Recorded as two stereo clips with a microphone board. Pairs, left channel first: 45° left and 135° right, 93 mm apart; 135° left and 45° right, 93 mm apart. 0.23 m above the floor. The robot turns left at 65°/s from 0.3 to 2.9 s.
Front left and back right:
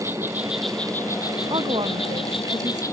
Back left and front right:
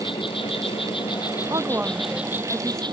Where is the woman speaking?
95° right; by 2.8 s straight behind.